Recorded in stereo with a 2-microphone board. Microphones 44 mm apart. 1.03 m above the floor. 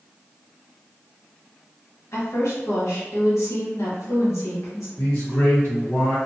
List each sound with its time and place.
2.1 s a woman speaking: 80° left, 1.3 m
5.0 s a man speaking: 60° left (ahead or behind), 1.5 m